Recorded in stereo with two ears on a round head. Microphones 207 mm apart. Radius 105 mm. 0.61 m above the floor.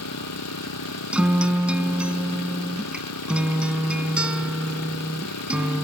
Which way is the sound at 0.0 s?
80° left.